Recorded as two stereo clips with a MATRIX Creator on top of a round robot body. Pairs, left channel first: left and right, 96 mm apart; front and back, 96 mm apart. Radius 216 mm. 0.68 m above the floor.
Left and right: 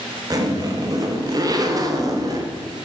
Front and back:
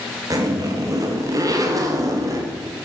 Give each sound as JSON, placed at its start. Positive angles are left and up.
{"t": 0.3, "sound": "a zipper", "azimuth_deg": -135, "distance_m": 1.1}